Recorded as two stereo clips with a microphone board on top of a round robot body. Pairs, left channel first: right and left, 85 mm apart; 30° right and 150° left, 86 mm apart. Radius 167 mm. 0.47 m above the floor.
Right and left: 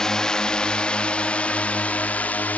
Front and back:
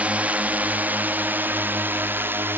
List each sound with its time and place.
0.0 s a drone: 165° right; by 2.6 s 155° right